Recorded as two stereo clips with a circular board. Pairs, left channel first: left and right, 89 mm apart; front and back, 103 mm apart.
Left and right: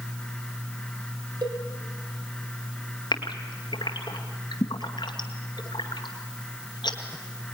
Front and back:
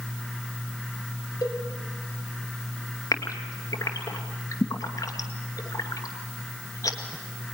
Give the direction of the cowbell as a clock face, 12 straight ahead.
2 o'clock.